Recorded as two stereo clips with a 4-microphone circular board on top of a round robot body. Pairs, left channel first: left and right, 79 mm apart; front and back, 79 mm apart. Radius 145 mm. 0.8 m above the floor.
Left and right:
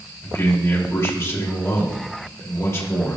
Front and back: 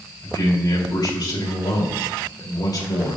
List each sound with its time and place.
0.2 s a man speaking: 35° left, 3 m